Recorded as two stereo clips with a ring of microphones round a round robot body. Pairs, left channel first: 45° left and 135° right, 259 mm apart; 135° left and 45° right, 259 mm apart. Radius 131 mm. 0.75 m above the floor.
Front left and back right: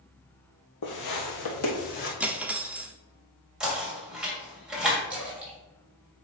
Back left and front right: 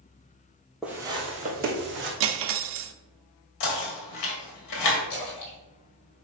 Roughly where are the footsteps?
Ahead left.